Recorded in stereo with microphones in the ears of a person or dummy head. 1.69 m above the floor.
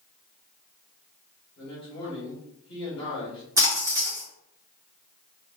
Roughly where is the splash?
Centre.